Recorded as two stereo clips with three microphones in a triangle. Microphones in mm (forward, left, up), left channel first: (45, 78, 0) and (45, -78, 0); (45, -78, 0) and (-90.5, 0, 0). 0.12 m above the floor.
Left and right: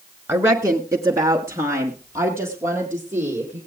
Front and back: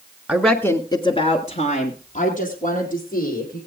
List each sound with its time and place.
0.3 s a woman speaking: 140° right, 1.2 m; by 3.6 s 15° right, 4 m